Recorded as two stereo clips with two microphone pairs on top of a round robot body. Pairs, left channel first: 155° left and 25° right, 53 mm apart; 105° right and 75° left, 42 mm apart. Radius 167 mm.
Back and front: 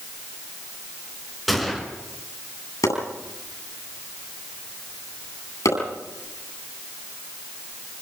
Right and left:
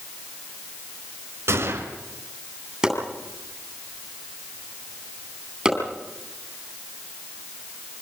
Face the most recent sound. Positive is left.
turn(degrees=150)